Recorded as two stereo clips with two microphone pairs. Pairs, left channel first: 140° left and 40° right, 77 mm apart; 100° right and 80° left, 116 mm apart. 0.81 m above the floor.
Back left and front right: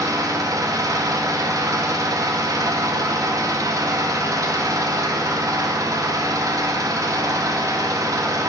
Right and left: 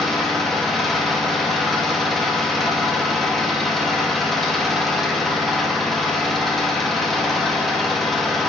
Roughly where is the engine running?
Ahead.